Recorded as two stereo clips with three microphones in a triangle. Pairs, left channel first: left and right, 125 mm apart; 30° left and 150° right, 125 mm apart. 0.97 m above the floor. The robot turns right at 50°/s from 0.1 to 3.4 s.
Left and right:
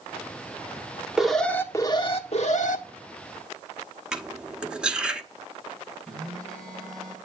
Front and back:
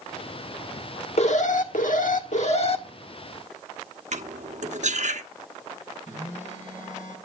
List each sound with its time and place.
1.2 s an alarm: 5° right, 1.4 m; by 2.8 s 80° left, 1.4 m
4.1 s cutlery clinking: 175° right, 1.0 m
6.1 s a phone buzzing: 5° left, 6 m